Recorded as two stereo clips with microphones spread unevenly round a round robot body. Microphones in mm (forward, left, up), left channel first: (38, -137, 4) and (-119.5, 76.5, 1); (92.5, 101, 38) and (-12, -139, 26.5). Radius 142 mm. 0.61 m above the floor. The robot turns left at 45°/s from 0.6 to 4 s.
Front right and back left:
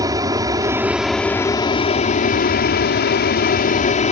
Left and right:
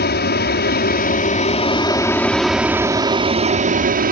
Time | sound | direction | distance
0.0 | an aircraft | 60° left | ?